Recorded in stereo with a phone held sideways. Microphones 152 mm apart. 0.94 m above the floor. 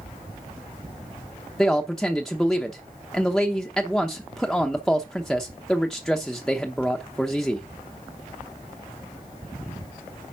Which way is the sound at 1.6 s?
Centre (ahead or behind).